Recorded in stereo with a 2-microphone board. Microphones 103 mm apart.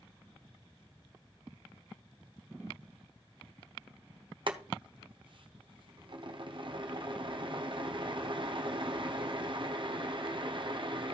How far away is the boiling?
About 1.1 m.